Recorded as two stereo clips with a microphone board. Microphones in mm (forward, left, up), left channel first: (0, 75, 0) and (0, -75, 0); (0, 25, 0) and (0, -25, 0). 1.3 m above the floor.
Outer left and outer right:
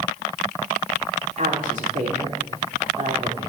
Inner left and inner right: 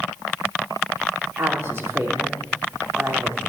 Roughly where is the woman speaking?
Right.